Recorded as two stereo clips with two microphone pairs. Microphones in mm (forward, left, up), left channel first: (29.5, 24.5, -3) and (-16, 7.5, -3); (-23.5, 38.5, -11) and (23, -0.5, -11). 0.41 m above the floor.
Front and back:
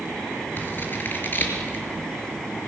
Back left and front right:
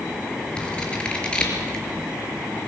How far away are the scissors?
About 4.5 m.